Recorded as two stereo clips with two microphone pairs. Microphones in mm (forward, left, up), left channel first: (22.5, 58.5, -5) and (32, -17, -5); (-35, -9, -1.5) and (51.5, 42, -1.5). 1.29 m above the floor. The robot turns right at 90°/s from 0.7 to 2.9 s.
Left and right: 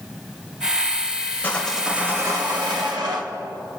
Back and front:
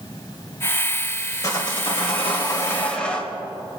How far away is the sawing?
About 2.5 m.